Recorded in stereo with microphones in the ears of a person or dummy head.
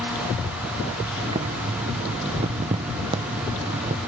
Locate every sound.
1.2 s boiling: 30° right (ahead or behind), 0.6 m